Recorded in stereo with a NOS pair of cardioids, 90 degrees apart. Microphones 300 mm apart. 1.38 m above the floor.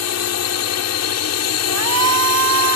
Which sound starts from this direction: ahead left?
A drone, at 0.0 s.